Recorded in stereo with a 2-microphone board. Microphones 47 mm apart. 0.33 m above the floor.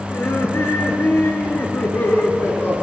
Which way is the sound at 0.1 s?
75° left (ahead or behind).